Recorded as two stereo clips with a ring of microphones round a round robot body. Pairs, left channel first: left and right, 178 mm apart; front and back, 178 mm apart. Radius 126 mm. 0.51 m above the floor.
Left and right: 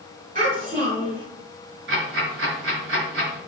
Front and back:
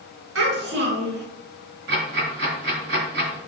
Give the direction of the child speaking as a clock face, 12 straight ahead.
5 o'clock.